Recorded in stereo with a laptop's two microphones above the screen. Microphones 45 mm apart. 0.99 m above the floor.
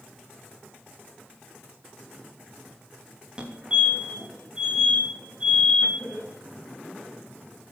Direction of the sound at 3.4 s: 20° right (ahead or behind).